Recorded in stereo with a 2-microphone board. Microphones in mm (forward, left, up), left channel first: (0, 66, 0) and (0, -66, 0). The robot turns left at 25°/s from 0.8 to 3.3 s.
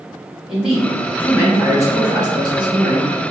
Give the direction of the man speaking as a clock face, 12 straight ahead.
12 o'clock.